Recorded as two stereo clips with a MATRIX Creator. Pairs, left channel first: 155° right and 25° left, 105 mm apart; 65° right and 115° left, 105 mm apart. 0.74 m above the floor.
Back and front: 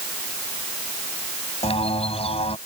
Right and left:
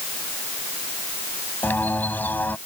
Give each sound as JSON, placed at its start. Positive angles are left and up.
{"t": 1.6, "sound": "a bird", "azimuth_deg": -140}